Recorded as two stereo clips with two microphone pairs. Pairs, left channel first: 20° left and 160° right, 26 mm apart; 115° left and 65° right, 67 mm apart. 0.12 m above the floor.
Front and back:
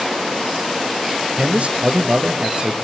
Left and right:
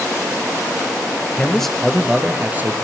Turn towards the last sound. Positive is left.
turn(degrees=-115)